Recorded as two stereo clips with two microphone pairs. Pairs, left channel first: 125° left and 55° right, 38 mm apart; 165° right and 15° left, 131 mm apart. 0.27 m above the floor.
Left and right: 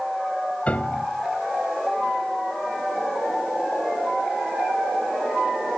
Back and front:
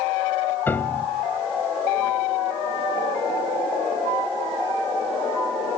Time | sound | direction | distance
0.7 | a piano | 135° left | 0.7 m